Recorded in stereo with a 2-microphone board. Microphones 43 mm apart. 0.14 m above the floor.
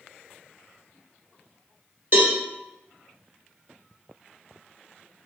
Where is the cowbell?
40° right (ahead or behind), 1.2 m.